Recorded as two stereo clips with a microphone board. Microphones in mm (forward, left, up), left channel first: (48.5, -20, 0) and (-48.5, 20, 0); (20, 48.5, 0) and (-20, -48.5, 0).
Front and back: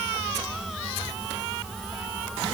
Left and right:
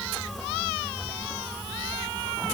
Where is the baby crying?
No baby crying in this recording.